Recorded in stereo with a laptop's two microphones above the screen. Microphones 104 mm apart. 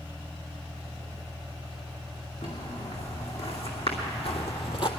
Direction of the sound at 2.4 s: 75° left (ahead or behind).